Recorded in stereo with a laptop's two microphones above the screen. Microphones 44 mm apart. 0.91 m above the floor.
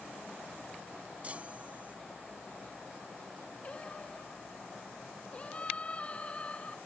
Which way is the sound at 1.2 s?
30° right (ahead or behind).